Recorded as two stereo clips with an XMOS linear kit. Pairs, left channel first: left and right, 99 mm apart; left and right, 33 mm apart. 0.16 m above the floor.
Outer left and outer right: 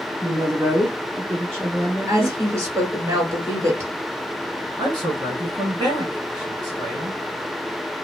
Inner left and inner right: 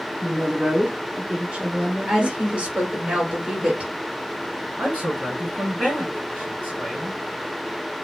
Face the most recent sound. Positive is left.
turn(degrees=-45)  # may be behind; listen again after turning